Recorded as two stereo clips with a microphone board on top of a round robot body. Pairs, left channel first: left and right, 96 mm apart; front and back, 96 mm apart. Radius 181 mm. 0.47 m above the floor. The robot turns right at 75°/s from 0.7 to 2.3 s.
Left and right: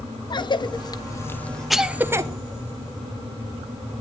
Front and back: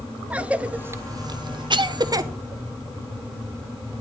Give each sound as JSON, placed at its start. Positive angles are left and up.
{"t": 0.3, "sound": "a cough", "azimuth_deg": 105, "distance_m": 1.1}